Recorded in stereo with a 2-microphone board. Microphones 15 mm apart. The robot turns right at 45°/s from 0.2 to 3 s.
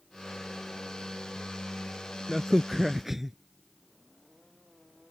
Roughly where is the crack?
Behind.